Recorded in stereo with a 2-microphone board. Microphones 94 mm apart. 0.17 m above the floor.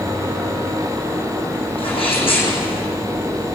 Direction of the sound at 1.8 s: 70° left (ahead or behind).